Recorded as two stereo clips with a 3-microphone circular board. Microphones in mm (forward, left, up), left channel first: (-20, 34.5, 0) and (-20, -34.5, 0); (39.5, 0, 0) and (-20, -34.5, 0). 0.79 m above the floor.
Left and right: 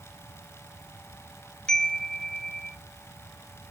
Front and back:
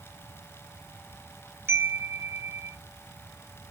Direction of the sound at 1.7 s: 165° left.